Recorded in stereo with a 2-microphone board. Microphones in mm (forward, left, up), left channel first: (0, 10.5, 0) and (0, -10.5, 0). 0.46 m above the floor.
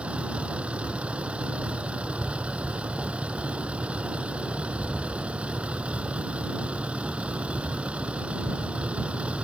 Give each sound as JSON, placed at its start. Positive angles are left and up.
{"t": 0.0, "sound": "a vehicle", "side_deg": -80}